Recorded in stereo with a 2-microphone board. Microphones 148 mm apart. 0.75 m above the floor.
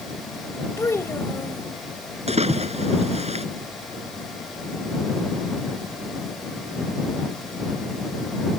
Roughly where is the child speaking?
Centre.